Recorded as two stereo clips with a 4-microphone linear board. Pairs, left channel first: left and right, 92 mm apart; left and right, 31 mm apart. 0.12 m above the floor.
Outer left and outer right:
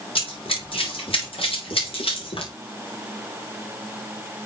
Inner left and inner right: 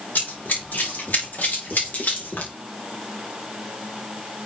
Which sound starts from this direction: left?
Running footsteps, at 0.1 s.